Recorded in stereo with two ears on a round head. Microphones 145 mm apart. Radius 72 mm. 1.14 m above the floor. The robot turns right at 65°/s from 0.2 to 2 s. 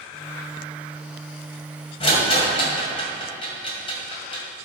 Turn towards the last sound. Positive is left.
turn(degrees=35)  # may be behind; listen again after turning